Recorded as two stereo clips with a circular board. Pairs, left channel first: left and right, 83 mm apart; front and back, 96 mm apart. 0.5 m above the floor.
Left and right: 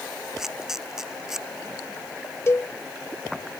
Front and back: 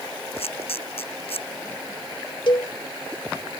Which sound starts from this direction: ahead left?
A cowbell, at 2.5 s.